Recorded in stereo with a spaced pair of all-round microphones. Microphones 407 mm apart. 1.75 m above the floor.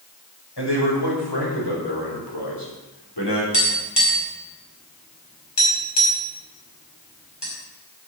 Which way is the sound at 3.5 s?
80° left.